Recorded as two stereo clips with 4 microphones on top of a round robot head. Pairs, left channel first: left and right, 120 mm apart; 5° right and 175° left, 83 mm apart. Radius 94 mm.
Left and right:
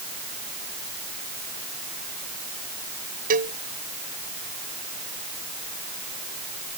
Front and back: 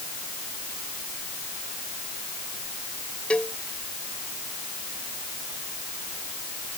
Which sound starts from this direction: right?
A cowbell, at 3.3 s.